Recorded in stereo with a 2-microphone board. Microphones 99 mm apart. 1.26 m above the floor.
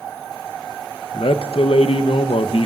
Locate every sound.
1.1 s a man speaking: 70° left (ahead or behind), 0.9 m